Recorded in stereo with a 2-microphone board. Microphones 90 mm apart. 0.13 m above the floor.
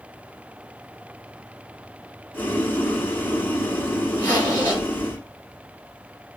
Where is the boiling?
20° left (ahead or behind), 1.0 m.